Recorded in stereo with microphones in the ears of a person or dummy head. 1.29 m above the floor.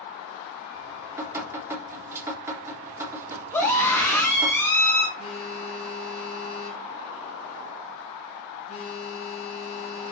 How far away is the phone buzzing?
About 3.5 m.